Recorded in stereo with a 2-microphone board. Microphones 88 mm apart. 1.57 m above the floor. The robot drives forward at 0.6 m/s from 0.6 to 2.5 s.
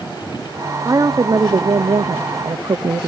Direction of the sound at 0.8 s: 40° right (ahead or behind).